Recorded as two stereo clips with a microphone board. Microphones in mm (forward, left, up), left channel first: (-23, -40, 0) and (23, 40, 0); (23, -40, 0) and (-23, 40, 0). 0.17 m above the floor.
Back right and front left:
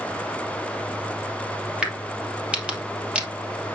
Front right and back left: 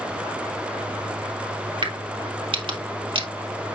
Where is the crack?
140° left, 2.5 m.